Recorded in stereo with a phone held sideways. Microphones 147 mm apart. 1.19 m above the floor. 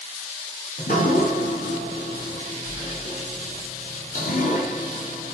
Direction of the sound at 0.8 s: 65° left (ahead or behind).